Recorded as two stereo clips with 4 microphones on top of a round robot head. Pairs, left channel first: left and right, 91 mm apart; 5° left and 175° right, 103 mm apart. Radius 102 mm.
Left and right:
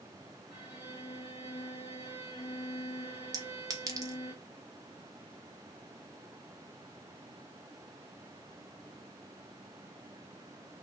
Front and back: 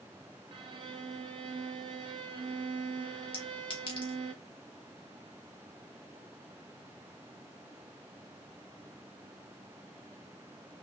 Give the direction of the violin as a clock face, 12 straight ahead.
7 o'clock.